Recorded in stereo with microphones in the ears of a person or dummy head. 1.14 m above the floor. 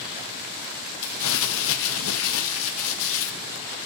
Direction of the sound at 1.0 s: 80° left.